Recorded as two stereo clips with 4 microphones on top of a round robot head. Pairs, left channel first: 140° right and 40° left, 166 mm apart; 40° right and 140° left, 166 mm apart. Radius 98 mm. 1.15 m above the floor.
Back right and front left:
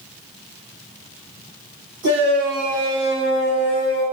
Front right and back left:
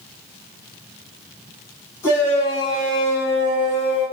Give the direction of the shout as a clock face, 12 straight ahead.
11 o'clock.